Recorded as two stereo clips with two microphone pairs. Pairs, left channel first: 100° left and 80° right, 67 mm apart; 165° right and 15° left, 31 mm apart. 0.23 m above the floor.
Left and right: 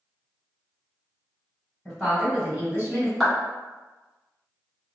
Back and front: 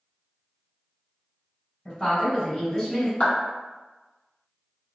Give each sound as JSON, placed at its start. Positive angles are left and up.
{"t": 1.9, "sound": "a woman speaking", "azimuth_deg": 175, "distance_m": 1.1}
{"t": 3.2, "sound": "a clap", "azimuth_deg": -170, "distance_m": 1.6}